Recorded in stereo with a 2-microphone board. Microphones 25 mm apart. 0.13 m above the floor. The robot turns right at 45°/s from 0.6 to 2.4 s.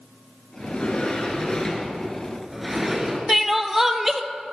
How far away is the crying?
About 0.8 m.